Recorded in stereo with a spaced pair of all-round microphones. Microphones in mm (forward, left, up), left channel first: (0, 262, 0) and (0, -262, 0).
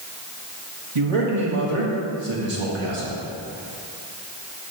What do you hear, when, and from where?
0.9 s a man speaking: 70° right (ahead or behind), 1.5 m